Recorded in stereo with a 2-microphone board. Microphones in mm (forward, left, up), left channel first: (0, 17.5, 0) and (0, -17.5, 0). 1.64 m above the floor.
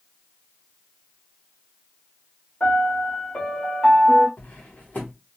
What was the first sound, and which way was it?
A piano, 30° left (ahead or behind).